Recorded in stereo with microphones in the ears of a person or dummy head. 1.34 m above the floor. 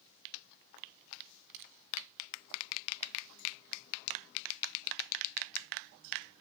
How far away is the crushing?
About 1.4 m.